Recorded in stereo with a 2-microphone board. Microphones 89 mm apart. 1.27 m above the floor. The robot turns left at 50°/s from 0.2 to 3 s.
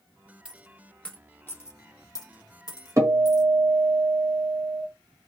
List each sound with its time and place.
0.5 s a dropped coin: 15° right (ahead or behind), 0.8 m; by 3.4 s 45° left (ahead or behind), 0.8 m
3.0 s a guitar: 40° right (ahead or behind), 0.9 m